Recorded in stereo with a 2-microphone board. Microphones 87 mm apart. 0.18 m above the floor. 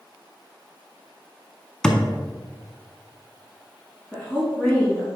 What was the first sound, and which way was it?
A thud, 10° left (ahead or behind).